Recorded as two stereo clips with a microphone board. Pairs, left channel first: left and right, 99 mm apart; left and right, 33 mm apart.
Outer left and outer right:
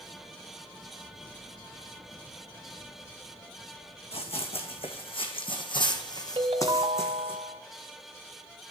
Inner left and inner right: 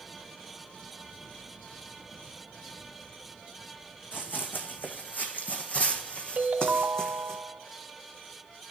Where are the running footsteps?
75° left (ahead or behind), 1.5 m; by 7.4 s 20° left (ahead or behind), 1.5 m.